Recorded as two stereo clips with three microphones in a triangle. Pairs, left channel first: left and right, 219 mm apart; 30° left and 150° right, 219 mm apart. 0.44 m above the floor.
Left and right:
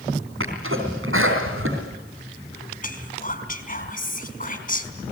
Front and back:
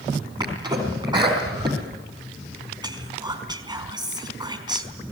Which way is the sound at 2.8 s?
140° left.